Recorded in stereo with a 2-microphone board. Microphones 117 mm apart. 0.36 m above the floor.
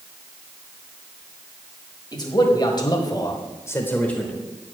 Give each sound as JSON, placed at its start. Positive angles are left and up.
{"t": 2.1, "sound": "a man speaking", "side_deg": 40, "distance_m": 1.9}